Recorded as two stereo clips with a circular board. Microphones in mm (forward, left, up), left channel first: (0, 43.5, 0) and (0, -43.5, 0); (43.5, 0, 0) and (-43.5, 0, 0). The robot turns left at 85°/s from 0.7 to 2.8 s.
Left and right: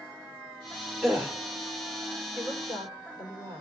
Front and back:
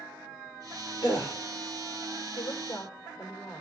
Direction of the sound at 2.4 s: 30° right.